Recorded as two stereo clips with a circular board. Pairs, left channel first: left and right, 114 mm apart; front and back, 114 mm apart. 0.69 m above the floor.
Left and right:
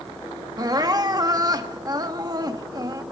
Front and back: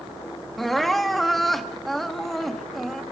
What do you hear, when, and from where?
0.6 s crying: 85° right, 1.2 m